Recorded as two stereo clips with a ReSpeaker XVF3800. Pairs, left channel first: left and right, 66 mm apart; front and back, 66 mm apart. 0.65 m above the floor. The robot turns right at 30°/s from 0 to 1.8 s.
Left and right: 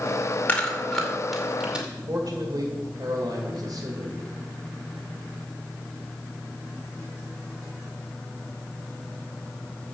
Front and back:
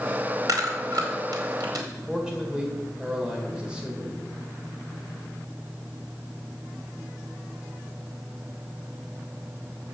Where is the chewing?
160° left, 2.5 m; by 1.9 s 165° right, 2.5 m.